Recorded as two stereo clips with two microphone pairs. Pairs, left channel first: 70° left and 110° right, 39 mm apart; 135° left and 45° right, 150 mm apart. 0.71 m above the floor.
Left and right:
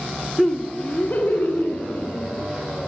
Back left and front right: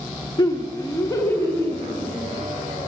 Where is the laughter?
160° left, 1.0 m; by 2.4 s 60° left, 3 m.